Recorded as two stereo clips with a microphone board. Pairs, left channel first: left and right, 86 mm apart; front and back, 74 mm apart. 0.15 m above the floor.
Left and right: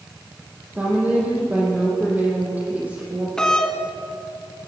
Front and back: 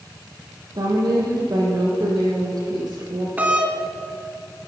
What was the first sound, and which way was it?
A woman speaking, 160° right.